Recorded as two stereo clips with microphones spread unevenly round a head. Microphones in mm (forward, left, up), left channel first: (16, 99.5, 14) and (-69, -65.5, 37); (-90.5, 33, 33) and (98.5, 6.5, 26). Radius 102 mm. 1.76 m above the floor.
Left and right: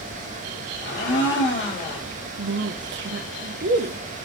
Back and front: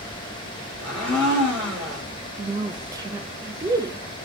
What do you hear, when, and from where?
0.8 s a blender: 90° left, 2.5 m
2.4 s a woman speaking: 85° right, 0.6 m